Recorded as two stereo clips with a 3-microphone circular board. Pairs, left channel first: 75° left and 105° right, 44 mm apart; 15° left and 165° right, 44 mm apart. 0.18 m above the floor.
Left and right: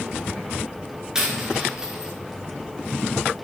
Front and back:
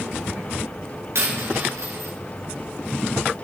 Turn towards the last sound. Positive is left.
turn(degrees=180)